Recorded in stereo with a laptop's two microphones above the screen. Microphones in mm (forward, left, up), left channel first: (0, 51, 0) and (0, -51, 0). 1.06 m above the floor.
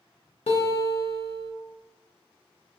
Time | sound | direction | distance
0.5 | a guitar | 75° left (ahead or behind) | 0.5 m